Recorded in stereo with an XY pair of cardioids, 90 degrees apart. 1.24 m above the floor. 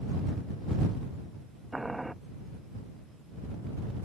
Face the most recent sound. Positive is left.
turn(degrees=-10)